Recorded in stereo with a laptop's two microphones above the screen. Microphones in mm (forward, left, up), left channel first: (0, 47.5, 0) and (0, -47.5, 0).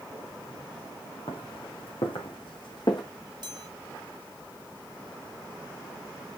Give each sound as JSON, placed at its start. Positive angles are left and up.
{"t": 1.3, "sound": "footsteps", "side_deg": 75, "distance_m": 3.5}
{"t": 3.4, "sound": "a chime", "side_deg": -50, "distance_m": 3.0}